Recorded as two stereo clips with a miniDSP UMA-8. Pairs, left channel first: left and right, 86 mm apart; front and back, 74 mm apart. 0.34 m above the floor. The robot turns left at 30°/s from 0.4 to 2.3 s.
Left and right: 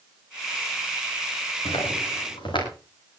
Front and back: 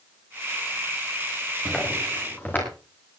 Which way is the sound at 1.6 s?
90° left.